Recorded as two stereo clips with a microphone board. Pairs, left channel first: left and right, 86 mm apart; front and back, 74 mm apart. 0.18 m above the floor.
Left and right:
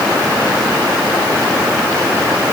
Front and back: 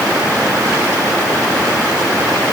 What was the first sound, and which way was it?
Only background noise.